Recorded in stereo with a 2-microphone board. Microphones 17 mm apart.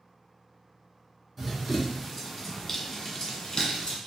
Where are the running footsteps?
15° right (ahead or behind), 1.4 m; by 4.0 s 50° left (ahead or behind), 1.2 m.